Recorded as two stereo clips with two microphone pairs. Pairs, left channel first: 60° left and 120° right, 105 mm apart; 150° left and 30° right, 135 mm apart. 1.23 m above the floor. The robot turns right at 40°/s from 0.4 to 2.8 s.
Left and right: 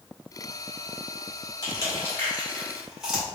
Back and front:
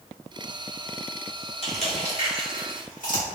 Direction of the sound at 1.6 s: 110° left.